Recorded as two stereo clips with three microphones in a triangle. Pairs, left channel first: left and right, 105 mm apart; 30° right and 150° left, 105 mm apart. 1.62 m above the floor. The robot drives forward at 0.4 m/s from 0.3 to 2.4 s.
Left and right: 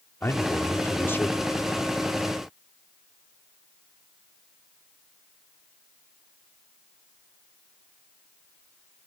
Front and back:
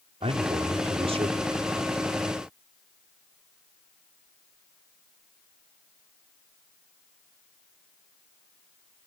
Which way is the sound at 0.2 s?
155° left.